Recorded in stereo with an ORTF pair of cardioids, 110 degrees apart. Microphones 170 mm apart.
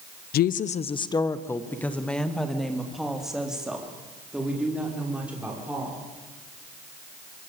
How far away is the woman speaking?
About 0.9 m.